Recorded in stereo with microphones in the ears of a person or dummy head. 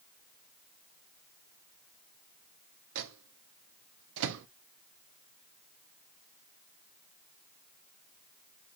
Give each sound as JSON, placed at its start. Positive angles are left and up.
{"t": 3.0, "sound": "a microwave", "side_deg": -75, "distance_m": 0.6}